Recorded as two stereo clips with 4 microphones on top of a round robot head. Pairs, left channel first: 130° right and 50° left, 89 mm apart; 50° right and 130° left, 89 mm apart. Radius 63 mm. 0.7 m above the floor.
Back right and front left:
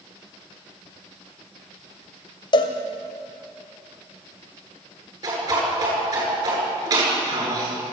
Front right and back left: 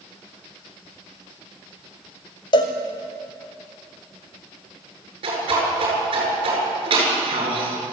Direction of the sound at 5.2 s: 100° left.